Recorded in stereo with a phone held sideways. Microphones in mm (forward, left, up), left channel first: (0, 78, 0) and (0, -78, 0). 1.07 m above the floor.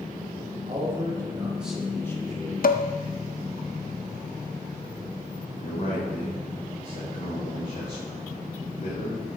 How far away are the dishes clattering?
About 0.5 m.